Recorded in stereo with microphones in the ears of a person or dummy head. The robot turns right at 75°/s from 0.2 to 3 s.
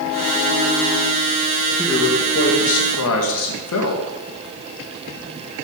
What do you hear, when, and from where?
1.8 s a man speaking: straight ahead, 1.9 m; by 4.0 s 90° left, 1.9 m